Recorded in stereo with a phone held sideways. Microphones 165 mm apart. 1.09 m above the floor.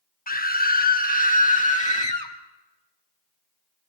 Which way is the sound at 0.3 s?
60° left (ahead or behind).